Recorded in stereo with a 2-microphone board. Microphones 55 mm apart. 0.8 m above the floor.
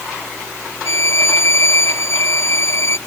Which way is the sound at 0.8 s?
55° left (ahead or behind).